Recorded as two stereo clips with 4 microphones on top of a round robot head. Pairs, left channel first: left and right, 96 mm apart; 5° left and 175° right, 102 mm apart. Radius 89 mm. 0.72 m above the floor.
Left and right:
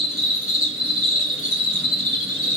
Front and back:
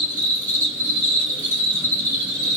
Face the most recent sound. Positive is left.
turn(degrees=140)